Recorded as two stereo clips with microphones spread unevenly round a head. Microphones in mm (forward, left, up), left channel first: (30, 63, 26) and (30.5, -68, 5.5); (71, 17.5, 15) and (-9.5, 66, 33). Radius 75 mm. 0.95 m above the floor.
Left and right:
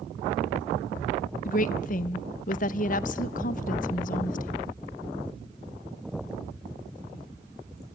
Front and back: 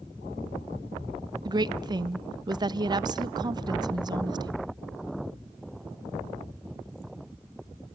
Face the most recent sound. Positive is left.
turn(degrees=105)